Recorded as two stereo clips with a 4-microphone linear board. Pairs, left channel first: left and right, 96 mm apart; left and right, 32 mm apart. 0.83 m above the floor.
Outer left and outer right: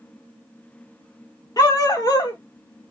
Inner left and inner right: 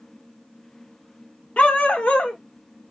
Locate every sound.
1.6 s a dog barking: 45° left (ahead or behind), 0.6 m